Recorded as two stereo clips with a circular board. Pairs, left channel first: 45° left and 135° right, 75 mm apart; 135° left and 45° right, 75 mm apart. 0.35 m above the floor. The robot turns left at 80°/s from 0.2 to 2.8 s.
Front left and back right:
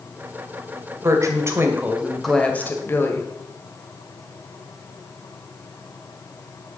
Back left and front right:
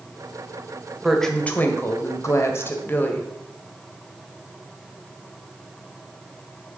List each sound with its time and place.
1.0 s a woman speaking: 130° right, 1.8 m; by 3.3 s 90° left, 1.8 m